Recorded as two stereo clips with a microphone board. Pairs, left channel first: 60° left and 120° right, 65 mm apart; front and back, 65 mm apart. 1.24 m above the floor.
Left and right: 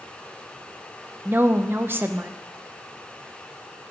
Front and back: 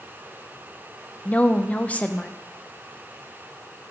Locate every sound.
1.2 s a woman speaking: 65° right, 0.7 m